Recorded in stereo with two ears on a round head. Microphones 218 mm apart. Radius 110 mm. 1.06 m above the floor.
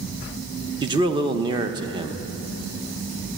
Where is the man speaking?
20° right (ahead or behind), 0.8 m.